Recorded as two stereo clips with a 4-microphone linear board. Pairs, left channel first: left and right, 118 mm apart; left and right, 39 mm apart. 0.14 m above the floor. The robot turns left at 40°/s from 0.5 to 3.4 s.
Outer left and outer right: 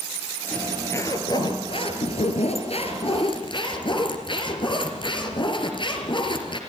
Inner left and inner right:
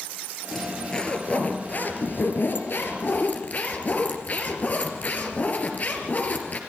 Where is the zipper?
170° left, 3 m; by 6.6 s 55° left, 3 m.